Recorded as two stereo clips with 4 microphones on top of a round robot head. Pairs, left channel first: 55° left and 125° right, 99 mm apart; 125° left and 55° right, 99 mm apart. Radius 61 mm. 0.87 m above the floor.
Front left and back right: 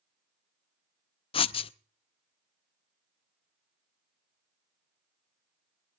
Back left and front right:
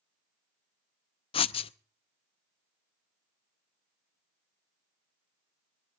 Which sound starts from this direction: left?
Writing, at 1.3 s.